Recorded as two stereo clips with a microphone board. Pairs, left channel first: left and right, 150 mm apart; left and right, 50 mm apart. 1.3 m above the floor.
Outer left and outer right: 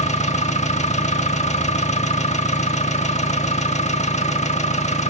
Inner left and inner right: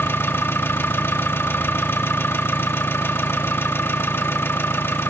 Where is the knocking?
I don't hear knocking.